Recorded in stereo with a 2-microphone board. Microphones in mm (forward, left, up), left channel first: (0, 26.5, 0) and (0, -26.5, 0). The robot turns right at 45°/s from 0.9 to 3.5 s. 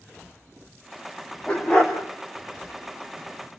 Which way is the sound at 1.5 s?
15° left (ahead or behind).